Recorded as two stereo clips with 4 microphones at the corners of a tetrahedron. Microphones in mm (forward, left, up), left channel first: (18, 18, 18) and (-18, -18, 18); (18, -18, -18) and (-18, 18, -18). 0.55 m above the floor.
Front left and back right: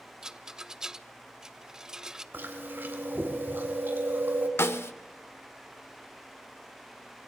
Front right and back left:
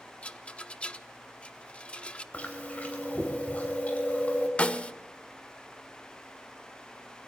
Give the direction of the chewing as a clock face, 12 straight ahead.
3 o'clock.